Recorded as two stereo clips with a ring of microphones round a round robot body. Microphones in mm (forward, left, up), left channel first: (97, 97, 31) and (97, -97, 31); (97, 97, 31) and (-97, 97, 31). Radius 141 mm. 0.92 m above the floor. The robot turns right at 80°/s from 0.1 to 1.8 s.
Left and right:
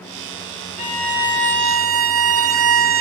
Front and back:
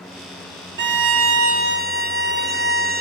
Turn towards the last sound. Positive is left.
turn(degrees=-120)